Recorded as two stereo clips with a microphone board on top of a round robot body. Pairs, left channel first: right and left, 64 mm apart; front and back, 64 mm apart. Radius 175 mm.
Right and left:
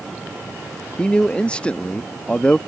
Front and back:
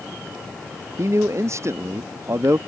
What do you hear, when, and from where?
1.0 s a man speaking: 160° right